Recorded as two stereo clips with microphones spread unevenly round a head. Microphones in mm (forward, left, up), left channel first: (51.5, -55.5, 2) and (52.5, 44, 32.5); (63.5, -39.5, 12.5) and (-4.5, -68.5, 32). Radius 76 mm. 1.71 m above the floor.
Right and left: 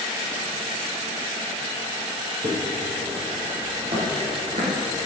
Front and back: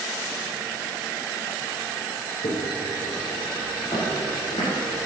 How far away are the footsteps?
About 5.5 m.